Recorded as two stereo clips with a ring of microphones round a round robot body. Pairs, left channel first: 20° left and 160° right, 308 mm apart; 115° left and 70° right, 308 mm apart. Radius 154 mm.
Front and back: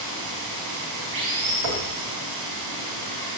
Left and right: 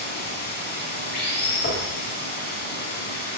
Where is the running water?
175° left, 4.5 m.